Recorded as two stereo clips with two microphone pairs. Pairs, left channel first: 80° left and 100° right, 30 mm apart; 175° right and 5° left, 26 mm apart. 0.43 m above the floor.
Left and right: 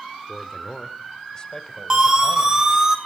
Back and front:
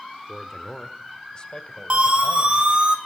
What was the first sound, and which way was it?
A man speaking, 120° left.